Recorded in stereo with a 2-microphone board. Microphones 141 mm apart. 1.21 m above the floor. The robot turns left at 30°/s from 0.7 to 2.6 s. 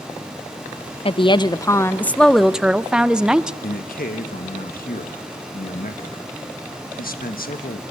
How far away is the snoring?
I don't hear snoring.